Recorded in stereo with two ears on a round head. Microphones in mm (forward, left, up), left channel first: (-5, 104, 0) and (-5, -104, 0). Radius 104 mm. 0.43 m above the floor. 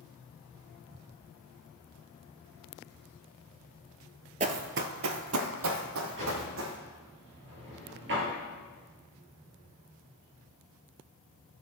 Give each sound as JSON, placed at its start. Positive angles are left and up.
{"t": 4.4, "sound": "running footsteps", "side_deg": -30, "distance_m": 0.6}
{"t": 6.2, "sound": "a drawer", "side_deg": -50, "distance_m": 3.5}